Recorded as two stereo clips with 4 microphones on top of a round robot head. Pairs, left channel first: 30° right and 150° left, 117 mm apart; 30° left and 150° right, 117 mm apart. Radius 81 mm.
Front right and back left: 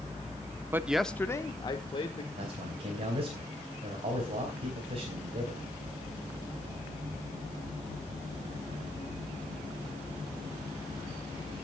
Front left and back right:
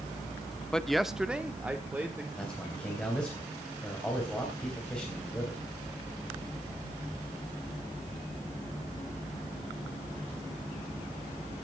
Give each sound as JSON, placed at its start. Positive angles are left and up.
{"t": 0.7, "sound": "a man speaking", "azimuth_deg": 110, "distance_m": 0.7}
{"t": 2.4, "sound": "a man speaking", "azimuth_deg": 115, "distance_m": 3.5}